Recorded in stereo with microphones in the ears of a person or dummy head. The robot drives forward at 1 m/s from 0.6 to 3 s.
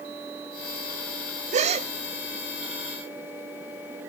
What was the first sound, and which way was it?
A gasp, 40° right (ahead or behind).